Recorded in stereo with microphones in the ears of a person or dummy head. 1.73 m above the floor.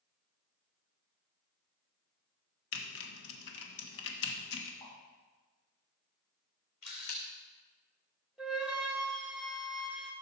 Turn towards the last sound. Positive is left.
turn(degrees=-10)  # may be behind; listen again after turning